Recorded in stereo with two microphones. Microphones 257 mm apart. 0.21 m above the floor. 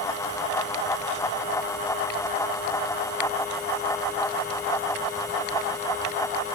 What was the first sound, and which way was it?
Only background noise.